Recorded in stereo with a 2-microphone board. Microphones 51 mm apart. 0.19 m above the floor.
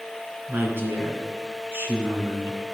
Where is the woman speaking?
55° right (ahead or behind), 2.5 m.